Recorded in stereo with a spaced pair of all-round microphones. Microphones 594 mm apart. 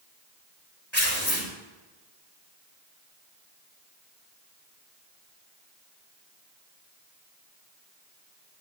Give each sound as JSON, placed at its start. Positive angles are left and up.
{"t": 0.9, "sound": "tearing paper", "side_deg": 45, "distance_m": 5.0}